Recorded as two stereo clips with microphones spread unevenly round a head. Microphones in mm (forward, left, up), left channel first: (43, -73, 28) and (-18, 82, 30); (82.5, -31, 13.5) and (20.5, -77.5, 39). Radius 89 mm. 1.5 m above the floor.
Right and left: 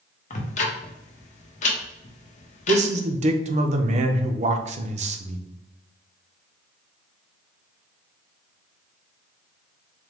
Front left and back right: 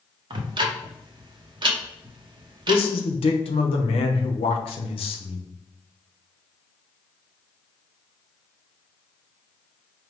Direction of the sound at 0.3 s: 115° right.